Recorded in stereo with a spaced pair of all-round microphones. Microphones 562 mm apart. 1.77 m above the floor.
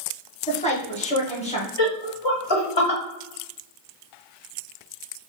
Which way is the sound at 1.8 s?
50° left (ahead or behind).